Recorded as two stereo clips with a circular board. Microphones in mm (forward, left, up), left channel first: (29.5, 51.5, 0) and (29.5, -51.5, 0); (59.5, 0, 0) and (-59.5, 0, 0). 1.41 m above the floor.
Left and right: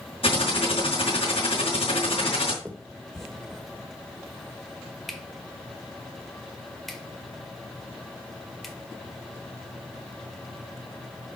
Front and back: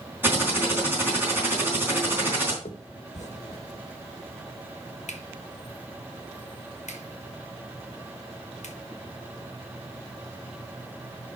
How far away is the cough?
I don't hear a cough.